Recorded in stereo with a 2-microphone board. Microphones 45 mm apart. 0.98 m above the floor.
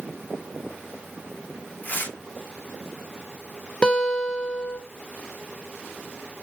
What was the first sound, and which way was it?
Tearing paper, 40° left (ahead or behind).